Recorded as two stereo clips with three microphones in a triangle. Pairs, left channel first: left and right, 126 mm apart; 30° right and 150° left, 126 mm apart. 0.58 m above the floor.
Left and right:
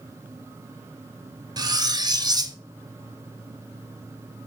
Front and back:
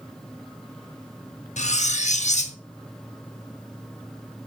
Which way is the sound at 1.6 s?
35° right.